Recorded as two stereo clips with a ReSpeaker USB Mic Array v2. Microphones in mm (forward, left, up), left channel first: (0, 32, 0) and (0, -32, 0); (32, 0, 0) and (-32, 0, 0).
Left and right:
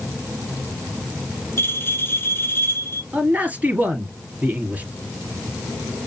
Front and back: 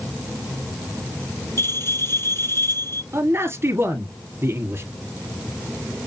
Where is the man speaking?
145° right, 1.8 m.